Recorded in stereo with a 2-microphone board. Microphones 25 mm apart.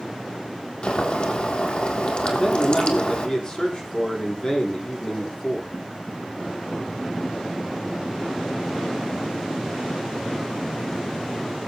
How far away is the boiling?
About 3 m.